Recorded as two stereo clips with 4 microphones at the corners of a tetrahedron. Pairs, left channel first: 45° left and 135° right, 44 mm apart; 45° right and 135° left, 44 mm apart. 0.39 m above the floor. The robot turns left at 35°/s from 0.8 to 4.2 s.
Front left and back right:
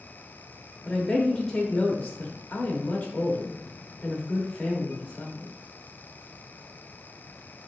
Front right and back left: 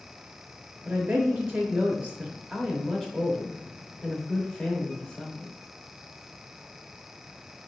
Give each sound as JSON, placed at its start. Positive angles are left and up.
{"t": 0.8, "sound": "a woman speaking", "azimuth_deg": 125, "distance_m": 0.9}